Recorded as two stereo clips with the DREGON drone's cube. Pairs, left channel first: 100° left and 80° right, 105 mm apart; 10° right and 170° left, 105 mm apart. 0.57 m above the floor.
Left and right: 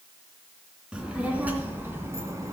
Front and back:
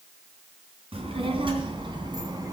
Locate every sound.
0.9 s a child speaking: 160° right, 3 m; by 2.5 s 140° right, 3 m